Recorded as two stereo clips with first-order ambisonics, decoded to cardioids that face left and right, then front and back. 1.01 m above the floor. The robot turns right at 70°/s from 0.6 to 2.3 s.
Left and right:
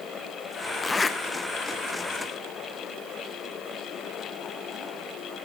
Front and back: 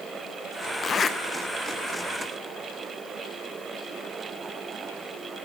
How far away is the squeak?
No squeak in this recording.